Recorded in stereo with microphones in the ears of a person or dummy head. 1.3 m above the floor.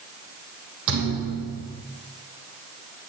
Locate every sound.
0.9 s a thud: 70° right (ahead or behind), 4 m